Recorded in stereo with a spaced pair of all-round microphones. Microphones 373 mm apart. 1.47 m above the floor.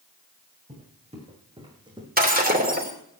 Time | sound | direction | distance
0.7 | footsteps | 15° right (ahead or behind) | 6 m
2.2 | breaking glass | 25° right (ahead or behind) | 3 m